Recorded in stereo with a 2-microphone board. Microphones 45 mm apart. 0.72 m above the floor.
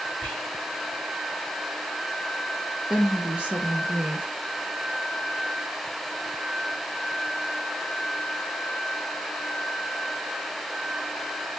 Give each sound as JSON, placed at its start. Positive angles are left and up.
{"t": 0.2, "sound": "whispering", "side_deg": 50, "distance_m": 1.9}
{"t": 2.9, "sound": "a woman speaking", "side_deg": -25, "distance_m": 0.8}